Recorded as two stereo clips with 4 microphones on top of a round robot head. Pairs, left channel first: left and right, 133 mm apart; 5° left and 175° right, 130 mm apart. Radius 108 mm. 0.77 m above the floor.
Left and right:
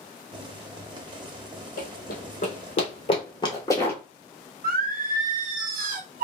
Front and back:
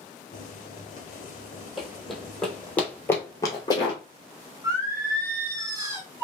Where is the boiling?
35° right, 0.8 m.